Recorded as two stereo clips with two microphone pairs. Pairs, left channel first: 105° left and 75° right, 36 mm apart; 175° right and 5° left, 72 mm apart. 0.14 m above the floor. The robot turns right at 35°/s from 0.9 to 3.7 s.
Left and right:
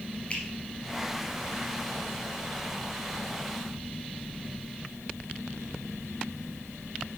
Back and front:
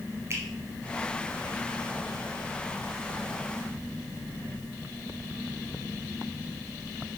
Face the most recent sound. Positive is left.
turn(degrees=145)